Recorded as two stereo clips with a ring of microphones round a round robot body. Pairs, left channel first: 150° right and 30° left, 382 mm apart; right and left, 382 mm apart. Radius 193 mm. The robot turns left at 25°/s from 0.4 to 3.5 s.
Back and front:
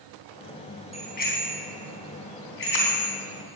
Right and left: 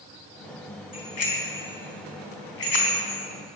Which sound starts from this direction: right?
A bicycle bell, at 0.9 s.